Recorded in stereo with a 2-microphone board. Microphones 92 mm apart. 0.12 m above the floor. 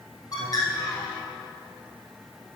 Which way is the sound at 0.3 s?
45° left (ahead or behind).